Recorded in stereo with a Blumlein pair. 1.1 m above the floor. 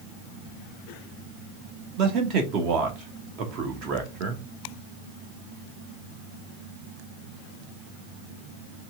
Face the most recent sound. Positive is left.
turn(degrees=-40)